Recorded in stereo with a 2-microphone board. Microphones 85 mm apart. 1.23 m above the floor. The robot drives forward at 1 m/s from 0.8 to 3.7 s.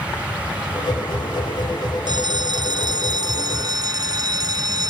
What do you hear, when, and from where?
2.1 s a bell: 55° right (ahead or behind); by 4.9 s 50° right (ahead or behind)